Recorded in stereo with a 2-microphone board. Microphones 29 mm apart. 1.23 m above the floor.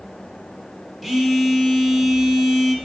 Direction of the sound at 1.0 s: 5° left (ahead or behind).